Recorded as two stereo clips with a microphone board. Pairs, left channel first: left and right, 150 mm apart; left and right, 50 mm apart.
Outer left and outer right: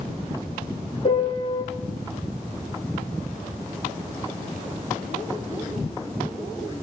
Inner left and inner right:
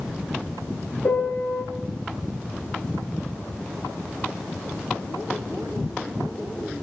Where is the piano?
40° left (ahead or behind), 3 m.